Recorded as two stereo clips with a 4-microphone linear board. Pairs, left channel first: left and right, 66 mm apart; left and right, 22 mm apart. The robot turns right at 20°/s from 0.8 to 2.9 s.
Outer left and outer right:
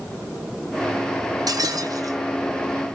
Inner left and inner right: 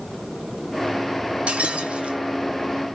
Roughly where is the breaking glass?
Right.